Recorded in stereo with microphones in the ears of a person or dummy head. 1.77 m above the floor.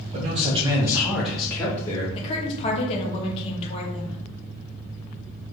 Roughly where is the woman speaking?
Left.